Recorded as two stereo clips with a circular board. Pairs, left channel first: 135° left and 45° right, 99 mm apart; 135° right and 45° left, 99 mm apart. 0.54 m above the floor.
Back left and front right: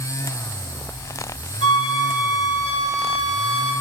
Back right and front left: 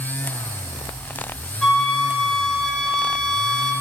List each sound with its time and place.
1.6 s a flute: 145° left, 1.3 m